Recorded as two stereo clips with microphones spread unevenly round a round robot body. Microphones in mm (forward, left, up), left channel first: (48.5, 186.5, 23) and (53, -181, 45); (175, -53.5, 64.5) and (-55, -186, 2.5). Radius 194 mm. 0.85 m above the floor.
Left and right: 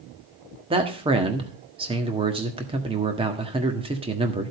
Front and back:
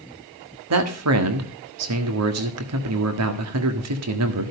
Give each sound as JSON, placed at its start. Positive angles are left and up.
{"t": 0.7, "sound": "a man speaking", "azimuth_deg": -165, "distance_m": 1.5}